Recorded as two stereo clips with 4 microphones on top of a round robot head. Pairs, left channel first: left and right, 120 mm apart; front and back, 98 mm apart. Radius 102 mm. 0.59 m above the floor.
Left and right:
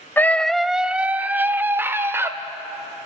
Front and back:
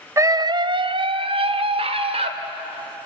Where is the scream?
150° left, 0.6 m; by 2.3 s 160° right, 1.9 m.